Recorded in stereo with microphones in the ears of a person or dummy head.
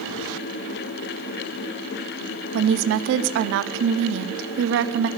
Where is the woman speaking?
70° right (ahead or behind), 0.8 m.